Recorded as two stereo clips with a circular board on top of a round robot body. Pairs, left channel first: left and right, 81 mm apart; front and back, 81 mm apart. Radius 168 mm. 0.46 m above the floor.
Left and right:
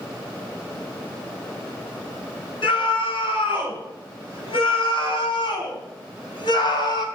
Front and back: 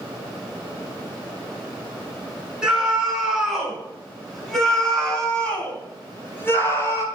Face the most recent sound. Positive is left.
turn(degrees=55)